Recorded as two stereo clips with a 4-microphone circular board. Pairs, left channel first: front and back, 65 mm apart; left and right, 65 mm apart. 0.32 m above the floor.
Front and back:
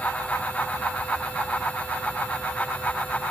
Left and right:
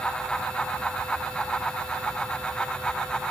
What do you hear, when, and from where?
Only background noise.